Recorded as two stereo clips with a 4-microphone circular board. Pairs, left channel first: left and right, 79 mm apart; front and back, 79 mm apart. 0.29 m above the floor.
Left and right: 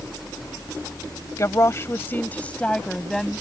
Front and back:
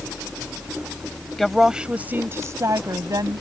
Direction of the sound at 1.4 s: 85° left.